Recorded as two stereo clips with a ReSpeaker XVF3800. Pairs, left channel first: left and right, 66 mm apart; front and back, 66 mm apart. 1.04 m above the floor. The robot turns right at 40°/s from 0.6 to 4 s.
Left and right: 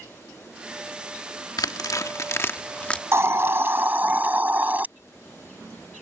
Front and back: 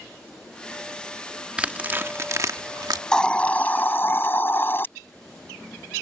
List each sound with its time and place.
1.6 s tearing paper: 105° left; by 3.0 s 165° left
3.1 s a hiss: 75° right; by 4.9 s 40° right